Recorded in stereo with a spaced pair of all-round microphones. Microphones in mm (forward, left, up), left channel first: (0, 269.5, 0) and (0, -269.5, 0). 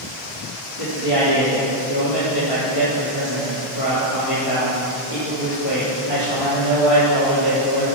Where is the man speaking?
70° left (ahead or behind), 3.5 m.